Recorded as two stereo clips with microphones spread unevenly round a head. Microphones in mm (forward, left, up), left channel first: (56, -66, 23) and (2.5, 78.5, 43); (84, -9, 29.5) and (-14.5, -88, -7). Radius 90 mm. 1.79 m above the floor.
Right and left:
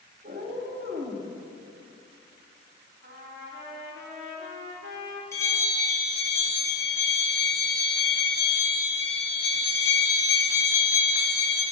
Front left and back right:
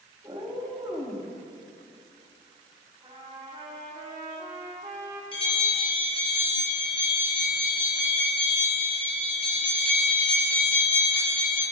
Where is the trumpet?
145° left, 3.5 m.